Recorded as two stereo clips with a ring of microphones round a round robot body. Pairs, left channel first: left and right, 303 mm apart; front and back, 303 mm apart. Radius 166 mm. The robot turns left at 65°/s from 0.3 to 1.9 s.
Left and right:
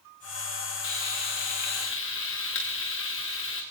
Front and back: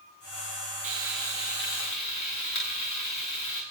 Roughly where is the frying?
Left.